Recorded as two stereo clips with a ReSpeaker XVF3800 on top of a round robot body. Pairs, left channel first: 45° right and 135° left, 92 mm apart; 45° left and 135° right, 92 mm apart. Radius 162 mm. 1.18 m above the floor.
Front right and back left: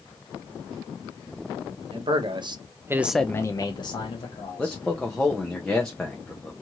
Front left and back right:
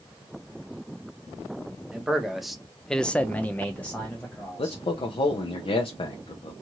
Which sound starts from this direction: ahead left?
A man speaking, at 4.6 s.